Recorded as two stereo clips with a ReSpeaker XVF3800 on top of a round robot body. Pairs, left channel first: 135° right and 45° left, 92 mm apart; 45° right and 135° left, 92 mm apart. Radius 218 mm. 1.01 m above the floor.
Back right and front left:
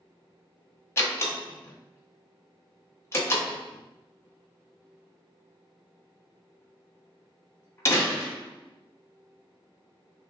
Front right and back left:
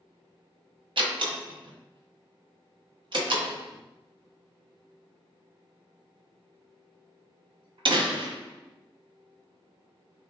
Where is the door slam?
165° left, 1.0 m.